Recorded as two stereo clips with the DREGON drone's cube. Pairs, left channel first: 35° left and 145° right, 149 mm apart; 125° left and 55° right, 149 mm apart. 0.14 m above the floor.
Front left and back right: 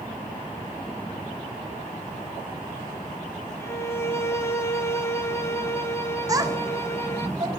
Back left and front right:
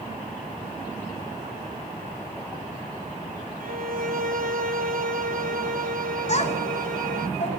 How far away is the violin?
About 1.0 m.